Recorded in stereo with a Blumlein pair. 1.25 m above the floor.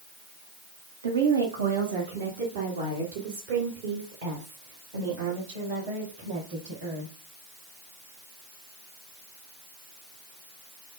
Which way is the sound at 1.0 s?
70° right.